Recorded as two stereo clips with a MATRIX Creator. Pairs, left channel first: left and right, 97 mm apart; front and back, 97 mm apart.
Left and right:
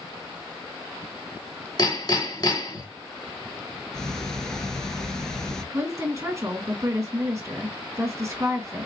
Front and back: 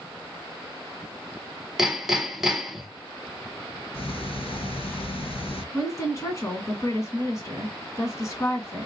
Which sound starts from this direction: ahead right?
A woman speaking, at 5.7 s.